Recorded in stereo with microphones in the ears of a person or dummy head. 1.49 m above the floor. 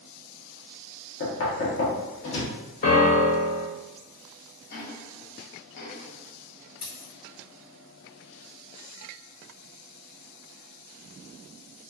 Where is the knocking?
65° left (ahead or behind), 1.0 m.